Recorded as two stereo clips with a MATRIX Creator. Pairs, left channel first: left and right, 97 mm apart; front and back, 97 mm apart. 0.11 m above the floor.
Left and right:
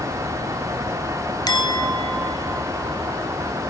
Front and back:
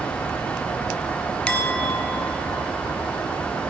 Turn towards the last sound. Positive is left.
turn(degrees=75)